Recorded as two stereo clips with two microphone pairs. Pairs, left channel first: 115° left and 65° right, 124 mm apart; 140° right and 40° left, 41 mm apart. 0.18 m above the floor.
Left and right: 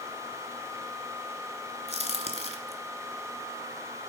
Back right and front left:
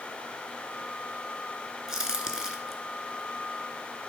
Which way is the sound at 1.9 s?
115° left.